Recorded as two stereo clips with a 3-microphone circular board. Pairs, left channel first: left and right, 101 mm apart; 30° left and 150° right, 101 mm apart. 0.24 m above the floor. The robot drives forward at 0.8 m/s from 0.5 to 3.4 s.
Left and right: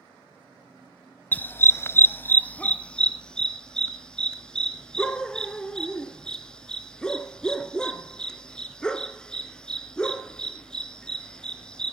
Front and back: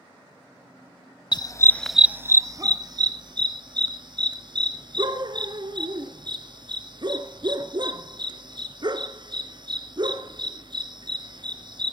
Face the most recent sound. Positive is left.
turn(degrees=170)